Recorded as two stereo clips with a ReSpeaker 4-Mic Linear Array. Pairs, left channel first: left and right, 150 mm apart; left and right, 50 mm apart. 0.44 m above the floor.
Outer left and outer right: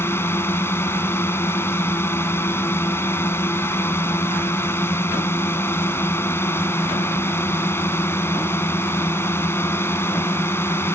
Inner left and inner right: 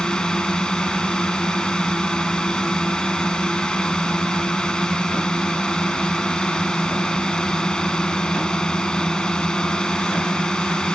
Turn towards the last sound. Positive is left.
turn(degrees=15)  # may be behind; listen again after turning